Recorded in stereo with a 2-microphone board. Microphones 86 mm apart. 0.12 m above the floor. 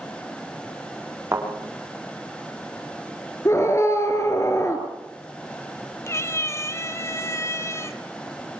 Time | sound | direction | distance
1.3 | a thud | 30° right (ahead or behind) | 8 m
3.5 | a scream | 35° left (ahead or behind) | 2.5 m
6.1 | a cat meowing | 30° left (ahead or behind) | 0.9 m